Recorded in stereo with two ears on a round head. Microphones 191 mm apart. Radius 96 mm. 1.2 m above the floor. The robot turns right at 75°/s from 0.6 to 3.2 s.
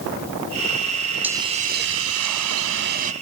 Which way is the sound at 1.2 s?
175° right.